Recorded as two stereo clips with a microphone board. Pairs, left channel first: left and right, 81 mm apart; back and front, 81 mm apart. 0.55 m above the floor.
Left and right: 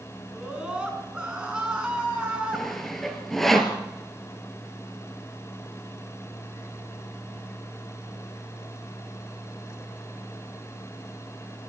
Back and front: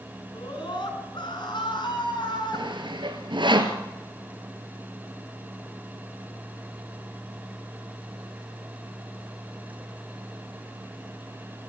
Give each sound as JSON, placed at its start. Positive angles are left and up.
{"t": 0.3, "sound": "a scream", "azimuth_deg": -170, "distance_m": 6.5}
{"t": 2.5, "sound": "sawing", "azimuth_deg": 5, "distance_m": 2.0}